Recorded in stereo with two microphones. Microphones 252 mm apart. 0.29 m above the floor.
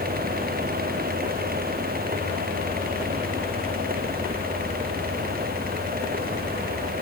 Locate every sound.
Only background noise.